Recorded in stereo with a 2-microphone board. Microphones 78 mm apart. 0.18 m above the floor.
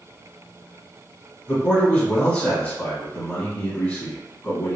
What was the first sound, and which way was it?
A man speaking, 20° left (ahead or behind).